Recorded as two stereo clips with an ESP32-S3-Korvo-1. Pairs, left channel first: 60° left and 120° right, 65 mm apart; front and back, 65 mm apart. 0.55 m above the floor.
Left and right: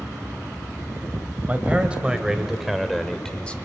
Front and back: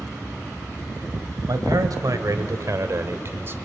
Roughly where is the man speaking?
Behind.